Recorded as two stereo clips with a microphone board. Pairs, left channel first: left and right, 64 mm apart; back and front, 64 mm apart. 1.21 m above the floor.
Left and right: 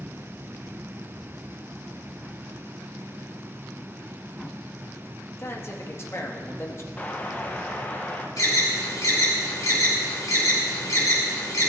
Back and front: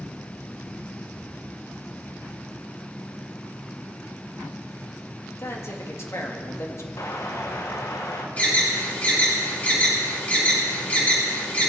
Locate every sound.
5.4 s a man speaking: 135° left, 1.5 m
7.0 s an explosion: 155° left, 1.2 m
8.4 s an alarm: 115° left, 4.5 m